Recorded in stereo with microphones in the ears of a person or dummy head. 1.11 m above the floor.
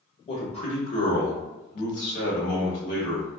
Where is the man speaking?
35° left (ahead or behind), 1.5 m; by 3.3 s 50° left (ahead or behind), 1.4 m.